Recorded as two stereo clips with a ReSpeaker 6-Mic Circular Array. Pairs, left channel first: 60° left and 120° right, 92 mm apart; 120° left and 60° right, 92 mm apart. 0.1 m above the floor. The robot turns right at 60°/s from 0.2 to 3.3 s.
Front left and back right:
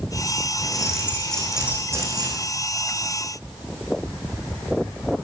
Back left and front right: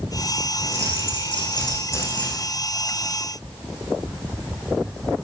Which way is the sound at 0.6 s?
100° left.